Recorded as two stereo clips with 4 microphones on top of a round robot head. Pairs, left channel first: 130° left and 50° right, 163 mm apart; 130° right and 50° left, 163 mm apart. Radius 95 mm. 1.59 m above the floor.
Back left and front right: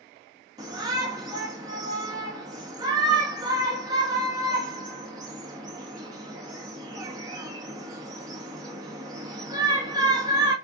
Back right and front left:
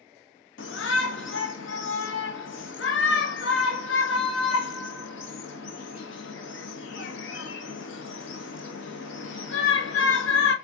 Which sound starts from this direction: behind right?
A shout, at 0.6 s.